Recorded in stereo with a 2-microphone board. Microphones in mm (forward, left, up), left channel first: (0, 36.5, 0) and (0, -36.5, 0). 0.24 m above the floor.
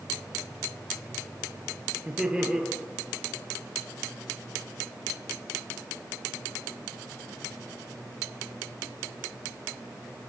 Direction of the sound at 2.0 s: 10° right (ahead or behind).